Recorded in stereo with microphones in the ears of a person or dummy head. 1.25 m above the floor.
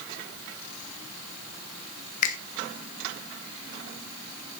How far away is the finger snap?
About 1.2 m.